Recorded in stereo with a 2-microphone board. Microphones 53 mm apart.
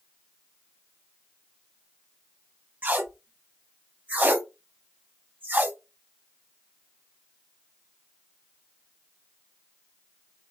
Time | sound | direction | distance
2.8 | tape being pulled | 35° right (ahead or behind) | 0.5 m